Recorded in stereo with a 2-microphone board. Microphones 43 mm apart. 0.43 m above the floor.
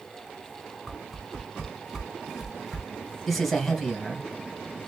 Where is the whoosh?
5° right (ahead or behind), 1.5 m.